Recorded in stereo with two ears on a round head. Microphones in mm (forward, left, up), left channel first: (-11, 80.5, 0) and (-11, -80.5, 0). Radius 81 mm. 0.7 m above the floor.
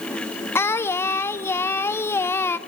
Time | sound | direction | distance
0.6 | singing | 15° left (ahead or behind) | 1.0 m